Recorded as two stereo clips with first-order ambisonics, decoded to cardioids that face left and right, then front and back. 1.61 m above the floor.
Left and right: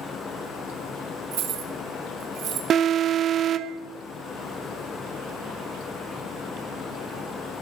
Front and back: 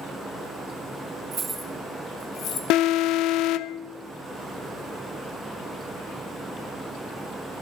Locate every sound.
1.3 s keys jangling: 120° right, 1.4 m; by 2.6 s 45° right, 1.9 m
2.7 s an alarm: 35° right, 0.6 m